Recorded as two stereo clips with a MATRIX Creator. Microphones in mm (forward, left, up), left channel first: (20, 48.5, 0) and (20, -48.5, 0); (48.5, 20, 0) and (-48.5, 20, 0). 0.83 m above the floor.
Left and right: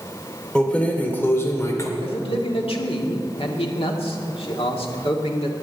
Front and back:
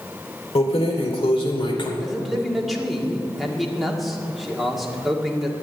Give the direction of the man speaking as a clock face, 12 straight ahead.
9 o'clock.